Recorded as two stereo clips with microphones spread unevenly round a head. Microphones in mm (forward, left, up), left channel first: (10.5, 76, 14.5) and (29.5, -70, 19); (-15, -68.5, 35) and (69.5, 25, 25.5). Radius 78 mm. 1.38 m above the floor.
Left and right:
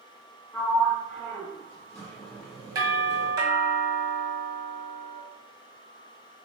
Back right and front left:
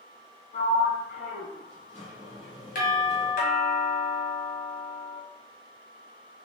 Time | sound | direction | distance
0.5 | a sliding door | 175° left | 1.4 m
2.8 | a doorbell | 150° right | 1.7 m